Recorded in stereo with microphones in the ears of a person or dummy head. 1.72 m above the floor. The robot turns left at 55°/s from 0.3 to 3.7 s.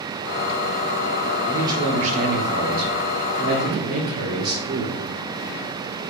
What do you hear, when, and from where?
1.5 s a man speaking: 15° right, 0.7 m; by 5.0 s 135° right, 0.7 m